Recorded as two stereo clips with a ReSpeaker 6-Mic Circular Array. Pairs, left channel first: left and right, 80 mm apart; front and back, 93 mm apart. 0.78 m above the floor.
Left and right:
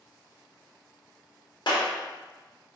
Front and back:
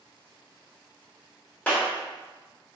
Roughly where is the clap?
Left.